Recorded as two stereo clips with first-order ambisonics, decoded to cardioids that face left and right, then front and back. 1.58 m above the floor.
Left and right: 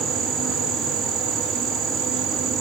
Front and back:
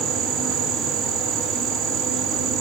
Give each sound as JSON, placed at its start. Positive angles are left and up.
{"t": 0.0, "sound": "an insect", "azimuth_deg": -135, "distance_m": 2.5}